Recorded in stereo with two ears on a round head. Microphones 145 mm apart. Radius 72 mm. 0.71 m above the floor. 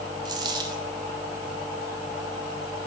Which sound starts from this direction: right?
A dropped coin, at 0.2 s.